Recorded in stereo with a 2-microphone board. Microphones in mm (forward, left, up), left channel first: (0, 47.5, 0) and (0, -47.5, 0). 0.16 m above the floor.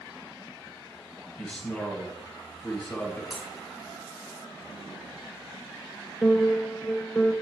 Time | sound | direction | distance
1.4 | a man speaking | 5° left (ahead or behind) | 3 m
3.3 | breaking glass | centre (ahead or behind) | 2.5 m
6.2 | a piano | centre (ahead or behind) | 0.9 m